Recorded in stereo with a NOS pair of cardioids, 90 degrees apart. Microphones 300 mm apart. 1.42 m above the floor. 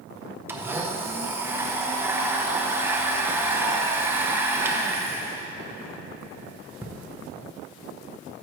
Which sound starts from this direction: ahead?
A blender, at 0.5 s.